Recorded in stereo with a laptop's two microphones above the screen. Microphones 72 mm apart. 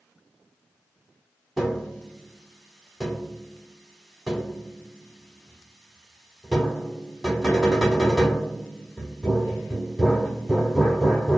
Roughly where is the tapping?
Centre.